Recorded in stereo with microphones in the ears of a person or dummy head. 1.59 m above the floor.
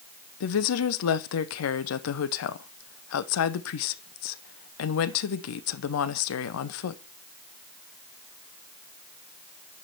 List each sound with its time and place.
0.4 s a woman speaking: 80° left, 0.9 m